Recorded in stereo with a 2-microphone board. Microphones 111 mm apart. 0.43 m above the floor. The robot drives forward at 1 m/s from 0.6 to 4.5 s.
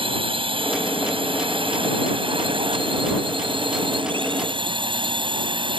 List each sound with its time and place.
0.0 s a drone: 60° right (ahead or behind); by 5.8 s 55° right (ahead or behind)